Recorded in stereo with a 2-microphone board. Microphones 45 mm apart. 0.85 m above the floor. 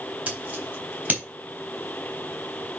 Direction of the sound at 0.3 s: 35° right (ahead or behind).